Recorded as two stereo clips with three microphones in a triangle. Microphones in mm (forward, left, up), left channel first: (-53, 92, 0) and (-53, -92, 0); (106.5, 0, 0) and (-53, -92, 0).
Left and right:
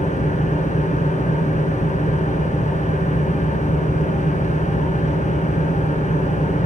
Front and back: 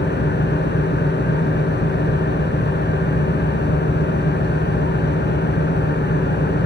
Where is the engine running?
45° left, 2 m.